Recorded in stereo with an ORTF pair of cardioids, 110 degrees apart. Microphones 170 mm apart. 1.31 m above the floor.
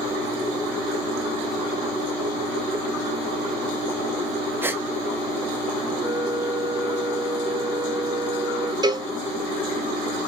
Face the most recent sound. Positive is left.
turn(degrees=-25)